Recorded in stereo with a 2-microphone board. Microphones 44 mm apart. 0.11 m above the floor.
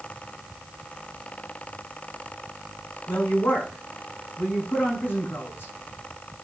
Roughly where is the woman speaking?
Left.